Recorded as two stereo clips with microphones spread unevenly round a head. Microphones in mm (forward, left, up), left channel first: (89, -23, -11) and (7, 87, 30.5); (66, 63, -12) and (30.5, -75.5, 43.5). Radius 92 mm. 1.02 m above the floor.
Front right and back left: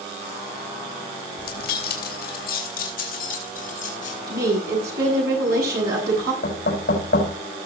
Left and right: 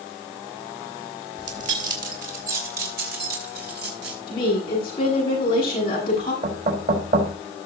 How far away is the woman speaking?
About 7.5 m.